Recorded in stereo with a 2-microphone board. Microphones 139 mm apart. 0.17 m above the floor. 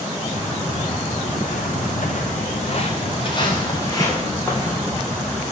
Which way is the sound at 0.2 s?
40° left (ahead or behind).